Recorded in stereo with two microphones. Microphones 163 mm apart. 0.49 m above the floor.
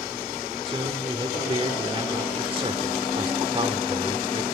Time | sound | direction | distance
0.7 | a man speaking | 35° right (ahead or behind) | 1.5 m